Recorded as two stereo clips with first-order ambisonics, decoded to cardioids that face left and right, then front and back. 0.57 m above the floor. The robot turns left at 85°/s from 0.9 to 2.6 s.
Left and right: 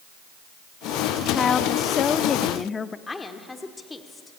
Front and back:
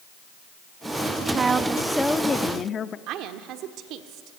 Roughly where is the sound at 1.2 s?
Behind left.